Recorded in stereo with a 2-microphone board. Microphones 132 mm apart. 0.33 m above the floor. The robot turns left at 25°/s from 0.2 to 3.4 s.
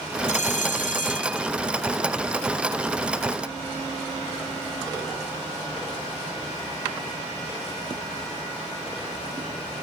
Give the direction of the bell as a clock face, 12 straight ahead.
8 o'clock.